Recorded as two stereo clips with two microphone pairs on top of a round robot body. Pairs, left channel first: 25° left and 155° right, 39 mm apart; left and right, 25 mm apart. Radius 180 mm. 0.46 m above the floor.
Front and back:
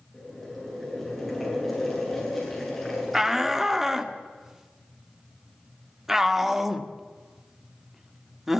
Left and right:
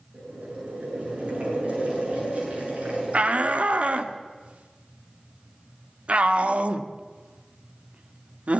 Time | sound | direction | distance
0.1 | boiling | 60° right | 9 m
3.1 | a shout | 80° right | 2 m